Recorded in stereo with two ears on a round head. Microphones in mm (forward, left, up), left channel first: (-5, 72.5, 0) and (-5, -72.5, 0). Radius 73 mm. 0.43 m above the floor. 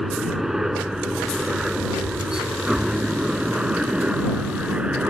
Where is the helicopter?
Centre (ahead or behind); by 5.1 s 5° right (ahead or behind).